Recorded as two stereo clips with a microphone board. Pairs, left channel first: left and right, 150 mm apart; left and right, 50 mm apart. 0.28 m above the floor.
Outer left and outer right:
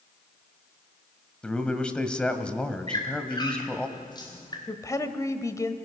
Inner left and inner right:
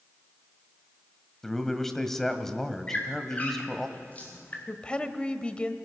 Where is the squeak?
30° left (ahead or behind), 4 m.